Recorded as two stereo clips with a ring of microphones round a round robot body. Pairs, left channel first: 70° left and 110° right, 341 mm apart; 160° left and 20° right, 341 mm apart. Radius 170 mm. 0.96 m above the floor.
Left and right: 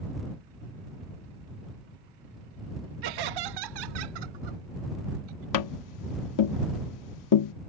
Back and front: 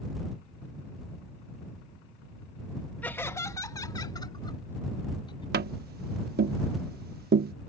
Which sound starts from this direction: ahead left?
Tapping, at 5.5 s.